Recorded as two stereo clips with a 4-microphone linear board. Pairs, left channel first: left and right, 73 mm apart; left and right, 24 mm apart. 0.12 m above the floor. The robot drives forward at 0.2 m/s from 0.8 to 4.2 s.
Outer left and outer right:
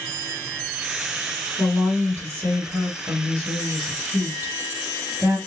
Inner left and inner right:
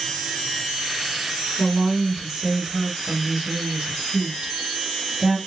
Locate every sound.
1.6 s a woman speaking: 30° right (ahead or behind), 1.9 m; by 5.4 s 25° right (ahead or behind), 2 m